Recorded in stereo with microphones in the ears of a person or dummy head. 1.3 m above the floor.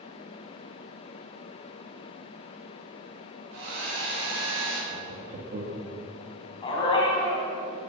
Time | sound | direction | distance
3.5 | a hair dryer | 75° right (ahead or behind) | 5 m
4.9 | laughter | 45° right (ahead or behind) | 2 m
6.6 | a dog barking | 30° left (ahead or behind) | 3.5 m